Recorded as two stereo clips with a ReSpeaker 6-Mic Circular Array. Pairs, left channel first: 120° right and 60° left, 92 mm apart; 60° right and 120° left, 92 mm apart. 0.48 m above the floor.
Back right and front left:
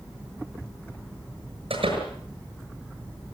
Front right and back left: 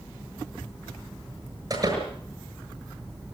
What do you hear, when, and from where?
1.7 s a door slam: 75° left, 7 m